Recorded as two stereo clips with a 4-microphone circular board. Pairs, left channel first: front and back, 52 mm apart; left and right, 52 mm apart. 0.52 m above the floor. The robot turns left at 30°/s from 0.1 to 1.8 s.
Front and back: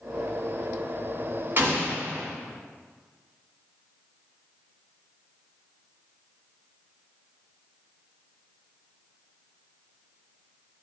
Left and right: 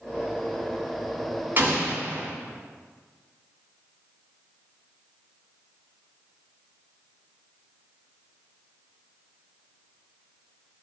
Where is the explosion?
135° right, 1.4 m; by 2.3 s 145° right, 1.4 m.